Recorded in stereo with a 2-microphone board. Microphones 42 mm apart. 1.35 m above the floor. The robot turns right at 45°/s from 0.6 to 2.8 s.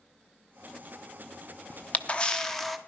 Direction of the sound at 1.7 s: 130° left.